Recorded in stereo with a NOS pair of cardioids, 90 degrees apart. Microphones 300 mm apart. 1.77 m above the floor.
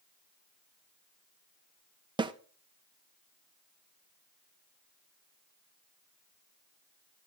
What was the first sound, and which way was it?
A snare drum, 15° right.